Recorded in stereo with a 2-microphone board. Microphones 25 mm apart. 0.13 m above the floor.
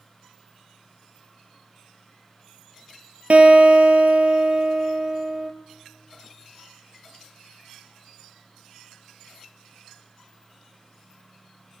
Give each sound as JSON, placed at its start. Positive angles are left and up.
{"t": 3.3, "sound": "a guitar", "side_deg": -65, "distance_m": 0.8}